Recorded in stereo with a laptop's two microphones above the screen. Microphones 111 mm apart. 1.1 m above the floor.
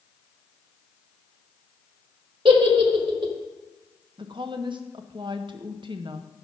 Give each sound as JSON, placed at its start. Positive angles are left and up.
{"t": 2.5, "sound": "a giggle", "side_deg": -55, "distance_m": 1.2}
{"t": 4.2, "sound": "a woman speaking", "side_deg": -50, "distance_m": 0.7}